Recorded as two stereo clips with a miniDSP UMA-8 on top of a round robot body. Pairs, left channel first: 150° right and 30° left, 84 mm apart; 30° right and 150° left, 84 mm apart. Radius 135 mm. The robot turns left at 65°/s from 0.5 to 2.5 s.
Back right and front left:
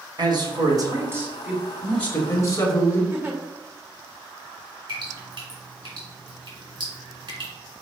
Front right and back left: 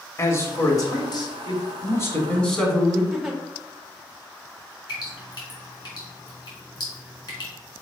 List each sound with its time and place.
0.2 s a man speaking: 20° left, 1.6 m; by 3.0 s 110° right, 1.6 m
3.1 s a giggle: 70° left, 1.1 m
4.9 s dripping: 5° left, 2.5 m